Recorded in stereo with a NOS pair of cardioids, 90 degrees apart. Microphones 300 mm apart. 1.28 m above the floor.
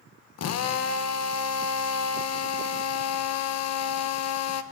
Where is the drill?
55° left, 1.0 m.